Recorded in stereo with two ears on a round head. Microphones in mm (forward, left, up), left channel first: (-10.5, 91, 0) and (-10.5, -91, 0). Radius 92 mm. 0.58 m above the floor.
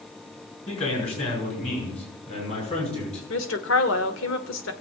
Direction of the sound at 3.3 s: 70° left (ahead or behind).